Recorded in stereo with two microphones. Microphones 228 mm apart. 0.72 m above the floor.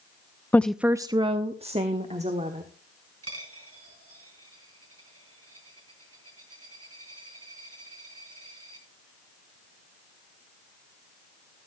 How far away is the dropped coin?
About 4 m.